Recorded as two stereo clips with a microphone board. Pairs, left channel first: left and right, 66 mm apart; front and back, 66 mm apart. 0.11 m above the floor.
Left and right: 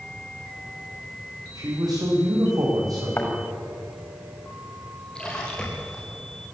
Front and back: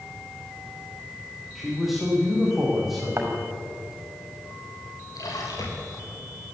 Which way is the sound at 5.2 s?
10° left.